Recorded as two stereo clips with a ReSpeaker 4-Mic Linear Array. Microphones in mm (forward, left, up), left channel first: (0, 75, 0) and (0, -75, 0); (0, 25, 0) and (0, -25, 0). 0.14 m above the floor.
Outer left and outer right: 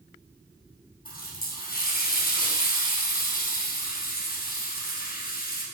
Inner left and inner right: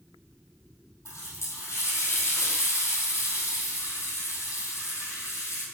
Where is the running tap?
75° left (ahead or behind), 3 m.